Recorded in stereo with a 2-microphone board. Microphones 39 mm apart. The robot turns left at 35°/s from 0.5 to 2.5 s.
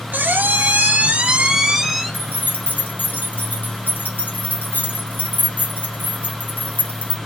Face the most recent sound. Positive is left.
turn(degrees=55)  # may be behind; listen again after turning